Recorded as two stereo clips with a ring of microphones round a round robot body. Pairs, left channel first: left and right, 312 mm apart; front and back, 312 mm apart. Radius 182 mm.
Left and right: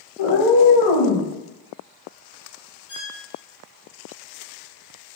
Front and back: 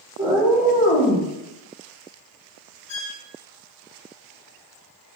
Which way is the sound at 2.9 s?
30° left.